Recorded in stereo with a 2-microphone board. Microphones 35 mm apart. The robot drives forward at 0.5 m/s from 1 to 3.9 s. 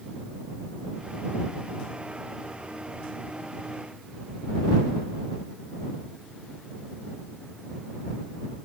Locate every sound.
Only background noise.